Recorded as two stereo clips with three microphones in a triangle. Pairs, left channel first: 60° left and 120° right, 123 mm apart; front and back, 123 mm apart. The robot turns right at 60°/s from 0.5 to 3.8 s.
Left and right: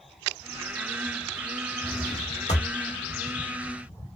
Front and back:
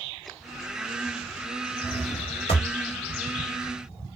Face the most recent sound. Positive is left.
turn(degrees=115)